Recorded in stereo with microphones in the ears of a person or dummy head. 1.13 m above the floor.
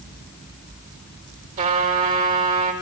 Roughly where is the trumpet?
Right.